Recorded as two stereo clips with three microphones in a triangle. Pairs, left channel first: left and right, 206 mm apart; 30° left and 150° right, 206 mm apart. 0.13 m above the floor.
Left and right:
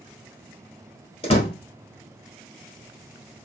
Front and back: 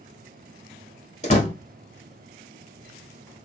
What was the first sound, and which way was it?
A door slam, 50° left.